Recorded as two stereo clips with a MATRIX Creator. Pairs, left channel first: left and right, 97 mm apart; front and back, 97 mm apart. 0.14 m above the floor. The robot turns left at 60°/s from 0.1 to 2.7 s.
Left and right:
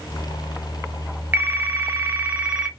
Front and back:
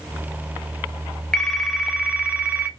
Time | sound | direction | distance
1.3 | a phone ringing | 75° right | 0.6 m